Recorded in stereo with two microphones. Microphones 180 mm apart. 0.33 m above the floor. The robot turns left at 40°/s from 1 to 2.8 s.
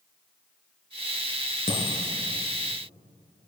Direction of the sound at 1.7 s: 50° left (ahead or behind).